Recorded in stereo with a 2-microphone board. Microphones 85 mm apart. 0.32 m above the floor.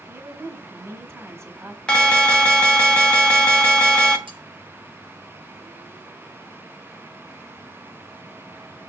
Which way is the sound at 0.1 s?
30° right (ahead or behind).